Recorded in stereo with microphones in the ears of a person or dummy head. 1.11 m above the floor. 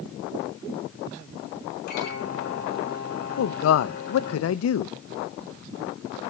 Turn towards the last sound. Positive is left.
turn(degrees=85)